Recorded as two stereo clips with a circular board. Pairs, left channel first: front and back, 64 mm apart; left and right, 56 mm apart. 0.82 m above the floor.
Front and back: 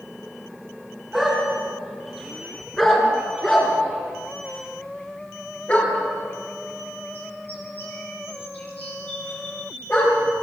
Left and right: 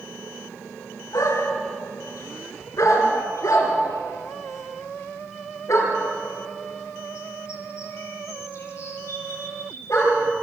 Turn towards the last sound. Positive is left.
turn(degrees=55)